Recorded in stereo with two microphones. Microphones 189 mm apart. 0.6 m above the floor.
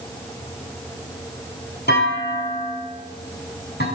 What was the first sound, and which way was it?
A clunk, 65° left (ahead or behind).